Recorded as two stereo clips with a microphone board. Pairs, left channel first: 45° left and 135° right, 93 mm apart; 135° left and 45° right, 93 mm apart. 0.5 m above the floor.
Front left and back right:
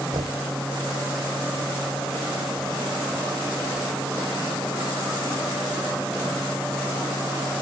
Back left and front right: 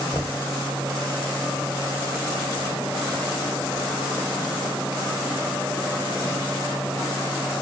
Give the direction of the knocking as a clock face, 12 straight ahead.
5 o'clock.